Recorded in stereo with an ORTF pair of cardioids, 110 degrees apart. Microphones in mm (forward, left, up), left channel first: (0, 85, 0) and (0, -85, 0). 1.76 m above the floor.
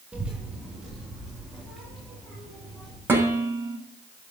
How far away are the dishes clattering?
About 6.5 m.